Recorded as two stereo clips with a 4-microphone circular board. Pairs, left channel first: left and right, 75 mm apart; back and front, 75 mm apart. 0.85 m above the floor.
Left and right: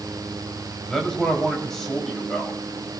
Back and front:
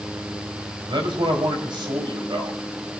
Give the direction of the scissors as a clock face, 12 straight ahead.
No scissors in this recording.